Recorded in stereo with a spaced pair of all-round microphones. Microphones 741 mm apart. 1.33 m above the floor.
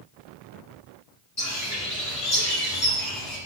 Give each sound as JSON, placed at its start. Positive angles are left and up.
{"t": 1.4, "sound": "a bird", "side_deg": 20, "distance_m": 3.0}